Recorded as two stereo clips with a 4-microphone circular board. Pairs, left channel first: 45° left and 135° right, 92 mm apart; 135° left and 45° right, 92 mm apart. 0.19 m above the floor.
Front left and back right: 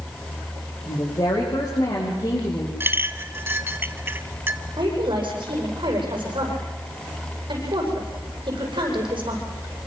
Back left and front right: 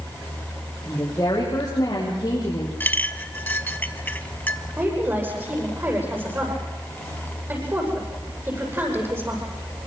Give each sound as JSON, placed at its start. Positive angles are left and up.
{"t": 0.9, "sound": "a woman speaking", "azimuth_deg": 80, "distance_m": 6.5}
{"t": 2.8, "sound": "a clink", "azimuth_deg": -175, "distance_m": 1.0}
{"t": 4.8, "sound": "a woman speaking", "azimuth_deg": -110, "distance_m": 10.0}